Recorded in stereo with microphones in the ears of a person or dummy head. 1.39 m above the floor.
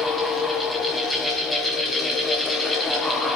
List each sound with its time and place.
0.0 s a fan: 5° right (ahead or behind), 1.9 m